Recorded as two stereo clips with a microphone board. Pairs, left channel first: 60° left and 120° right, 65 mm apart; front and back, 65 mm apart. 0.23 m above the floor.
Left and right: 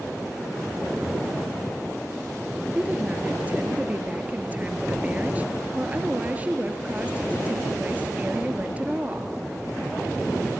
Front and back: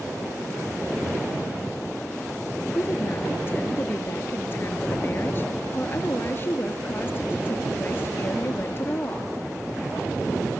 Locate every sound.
2.8 s a woman speaking: 55° right, 3.5 m